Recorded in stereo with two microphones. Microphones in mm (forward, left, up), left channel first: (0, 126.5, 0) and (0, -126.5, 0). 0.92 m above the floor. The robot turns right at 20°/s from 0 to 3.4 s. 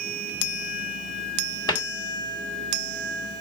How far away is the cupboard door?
About 1.1 m.